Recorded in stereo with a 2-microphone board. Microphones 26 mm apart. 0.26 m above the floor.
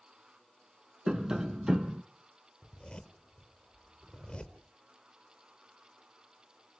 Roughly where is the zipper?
Left.